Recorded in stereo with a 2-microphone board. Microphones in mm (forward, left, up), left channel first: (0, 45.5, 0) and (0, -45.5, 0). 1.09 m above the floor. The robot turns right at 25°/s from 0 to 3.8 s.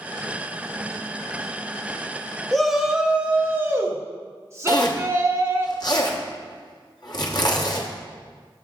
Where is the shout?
175° left, 1.1 m; by 5.7 s 150° right, 1.1 m.